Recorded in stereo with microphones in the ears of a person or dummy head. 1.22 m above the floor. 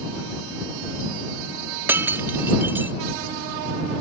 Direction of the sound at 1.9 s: 15° right (ahead or behind).